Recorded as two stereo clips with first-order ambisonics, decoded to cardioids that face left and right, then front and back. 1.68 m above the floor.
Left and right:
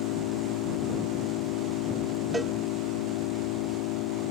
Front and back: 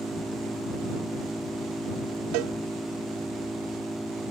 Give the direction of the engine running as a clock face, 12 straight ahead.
9 o'clock.